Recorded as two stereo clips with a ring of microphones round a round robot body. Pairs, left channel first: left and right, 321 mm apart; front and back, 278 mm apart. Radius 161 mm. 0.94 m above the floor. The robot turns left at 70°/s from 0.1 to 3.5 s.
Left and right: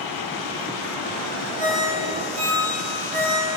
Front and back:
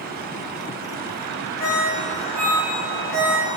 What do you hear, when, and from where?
1.6 s a ringtone: 70° right, 4 m; by 3.5 s 155° left, 4 m